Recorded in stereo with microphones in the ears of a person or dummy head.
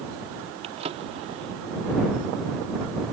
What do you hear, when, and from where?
0.6 s a drawer: 35° right (ahead or behind)